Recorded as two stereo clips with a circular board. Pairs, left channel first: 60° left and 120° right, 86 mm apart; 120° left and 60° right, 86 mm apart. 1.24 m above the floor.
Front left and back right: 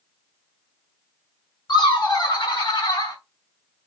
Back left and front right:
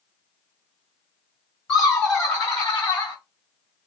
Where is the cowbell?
No cowbell in this recording.